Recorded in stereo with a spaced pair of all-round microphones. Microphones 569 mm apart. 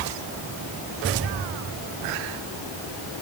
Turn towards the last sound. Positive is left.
No sound to turn to.